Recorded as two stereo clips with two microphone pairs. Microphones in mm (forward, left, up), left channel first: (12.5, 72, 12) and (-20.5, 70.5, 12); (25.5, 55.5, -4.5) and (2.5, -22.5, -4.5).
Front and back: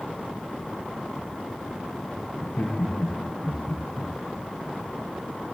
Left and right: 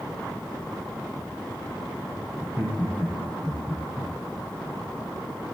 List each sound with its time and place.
2.4 s laughter: 35° right, 7.5 m; by 4.1 s 45° right, 8 m